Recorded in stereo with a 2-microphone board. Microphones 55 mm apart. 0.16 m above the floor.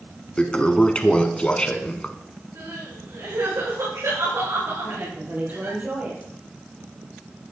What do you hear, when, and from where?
0.4 s a toilet flushing: 20° left (ahead or behind), 1.0 m
2.5 s crying: 80° right, 8 m
4.8 s a woman speaking: 30° right (ahead or behind), 4.5 m